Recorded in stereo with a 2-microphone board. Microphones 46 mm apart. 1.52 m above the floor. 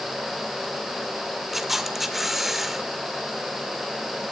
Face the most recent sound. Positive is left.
turn(degrees=-5)  # may be behind; listen again after turning